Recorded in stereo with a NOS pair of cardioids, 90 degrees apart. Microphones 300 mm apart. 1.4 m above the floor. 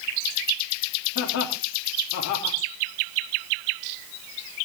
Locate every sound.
1.1 s laughter: 70° left, 4 m